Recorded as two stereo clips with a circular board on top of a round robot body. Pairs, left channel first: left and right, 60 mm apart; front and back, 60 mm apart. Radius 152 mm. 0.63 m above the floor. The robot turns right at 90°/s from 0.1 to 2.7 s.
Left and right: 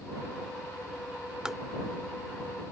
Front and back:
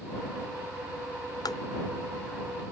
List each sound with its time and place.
1.4 s tapping: 10° right; by 1.6 s 5° left